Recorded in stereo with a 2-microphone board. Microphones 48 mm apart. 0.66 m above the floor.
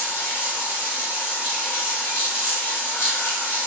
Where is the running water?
60° left (ahead or behind), 1.2 m.